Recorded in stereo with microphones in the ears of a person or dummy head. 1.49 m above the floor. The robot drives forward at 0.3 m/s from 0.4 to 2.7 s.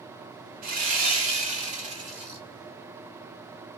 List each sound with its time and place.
0.6 s sawing: 50° right (ahead or behind), 0.8 m; by 2.4 s 30° right (ahead or behind), 1.3 m